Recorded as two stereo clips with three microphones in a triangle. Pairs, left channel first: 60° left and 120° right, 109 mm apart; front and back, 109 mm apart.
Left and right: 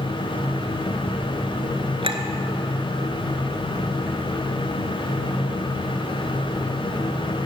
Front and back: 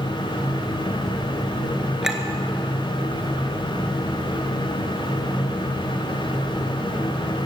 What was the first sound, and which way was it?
A clink, 95° right.